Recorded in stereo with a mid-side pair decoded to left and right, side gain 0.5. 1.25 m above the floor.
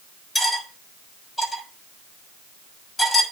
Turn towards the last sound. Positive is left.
turn(degrees=15)